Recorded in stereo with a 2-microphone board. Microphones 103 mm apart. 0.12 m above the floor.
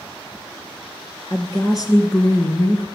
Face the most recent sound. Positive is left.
turn(degrees=35)  # may be behind; listen again after turning